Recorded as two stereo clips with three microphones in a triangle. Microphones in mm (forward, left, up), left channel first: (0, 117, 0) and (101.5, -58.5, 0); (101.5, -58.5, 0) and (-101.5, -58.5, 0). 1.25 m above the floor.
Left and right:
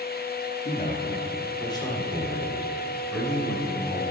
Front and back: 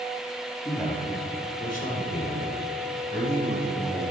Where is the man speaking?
75° left, 2.5 m; by 4.0 s 30° left, 6 m.